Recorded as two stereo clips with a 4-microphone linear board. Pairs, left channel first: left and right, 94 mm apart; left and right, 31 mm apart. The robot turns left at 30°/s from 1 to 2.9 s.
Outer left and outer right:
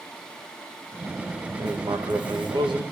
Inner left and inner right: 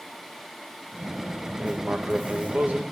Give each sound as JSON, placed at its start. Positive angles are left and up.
{"t": 1.6, "sound": "writing", "azimuth_deg": -60, "distance_m": 0.8}